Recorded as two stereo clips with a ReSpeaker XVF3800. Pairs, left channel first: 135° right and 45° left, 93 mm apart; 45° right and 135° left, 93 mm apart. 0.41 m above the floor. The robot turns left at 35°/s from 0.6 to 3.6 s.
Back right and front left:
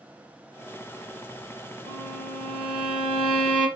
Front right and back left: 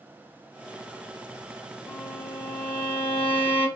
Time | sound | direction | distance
1.9 | a violin | 25° left | 3 m